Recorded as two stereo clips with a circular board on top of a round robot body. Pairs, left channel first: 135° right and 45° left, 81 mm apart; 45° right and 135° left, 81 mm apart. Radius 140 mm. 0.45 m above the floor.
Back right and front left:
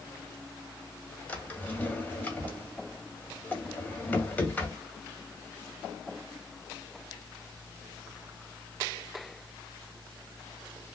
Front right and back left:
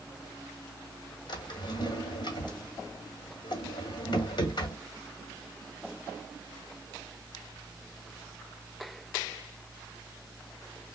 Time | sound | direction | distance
1.3 | a drawer | 65° right | 1.7 m